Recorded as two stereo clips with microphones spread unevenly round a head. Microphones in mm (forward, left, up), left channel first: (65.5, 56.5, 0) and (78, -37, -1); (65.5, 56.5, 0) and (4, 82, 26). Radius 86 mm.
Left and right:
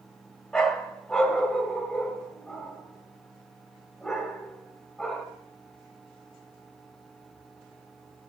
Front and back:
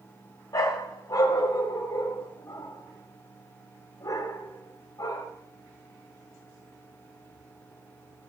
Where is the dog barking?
20° left, 1.4 m.